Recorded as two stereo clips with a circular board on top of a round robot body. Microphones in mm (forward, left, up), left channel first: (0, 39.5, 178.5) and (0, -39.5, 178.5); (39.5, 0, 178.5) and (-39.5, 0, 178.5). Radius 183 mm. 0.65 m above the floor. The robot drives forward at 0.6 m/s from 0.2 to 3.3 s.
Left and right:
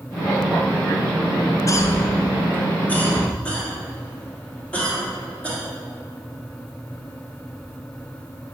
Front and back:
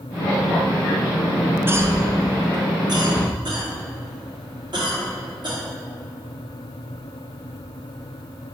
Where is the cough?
125° left, 0.6 m; by 5.6 s 165° left, 1.4 m.